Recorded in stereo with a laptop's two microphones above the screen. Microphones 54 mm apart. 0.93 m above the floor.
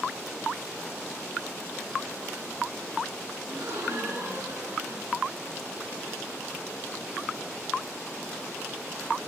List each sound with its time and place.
3.5 s a gasp: 90° right, 7.5 m